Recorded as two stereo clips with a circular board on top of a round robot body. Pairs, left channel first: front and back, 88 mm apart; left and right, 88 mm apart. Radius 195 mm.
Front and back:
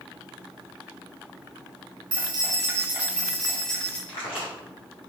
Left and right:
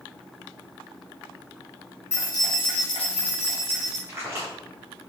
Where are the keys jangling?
150° left, 1.1 m; by 4.0 s 80° left, 1.9 m.